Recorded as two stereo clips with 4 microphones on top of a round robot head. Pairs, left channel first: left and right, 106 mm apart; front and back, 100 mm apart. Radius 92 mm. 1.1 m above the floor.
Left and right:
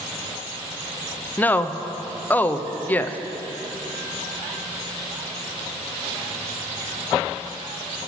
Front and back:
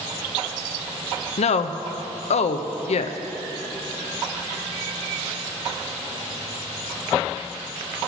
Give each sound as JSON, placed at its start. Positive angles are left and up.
{"t": 1.4, "sound": "a woman speaking", "azimuth_deg": 15, "distance_m": 0.5}